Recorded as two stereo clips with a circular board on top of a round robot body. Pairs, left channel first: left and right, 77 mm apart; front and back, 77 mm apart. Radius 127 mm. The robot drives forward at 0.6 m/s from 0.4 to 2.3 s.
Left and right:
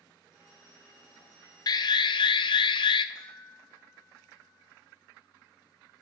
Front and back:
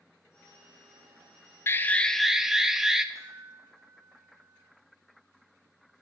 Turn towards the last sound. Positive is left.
turn(degrees=130)